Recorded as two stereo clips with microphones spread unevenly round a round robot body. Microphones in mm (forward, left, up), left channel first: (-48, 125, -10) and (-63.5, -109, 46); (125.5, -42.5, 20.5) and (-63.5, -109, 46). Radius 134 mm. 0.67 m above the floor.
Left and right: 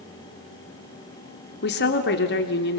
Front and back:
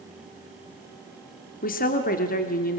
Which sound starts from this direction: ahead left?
A woman speaking, at 1.6 s.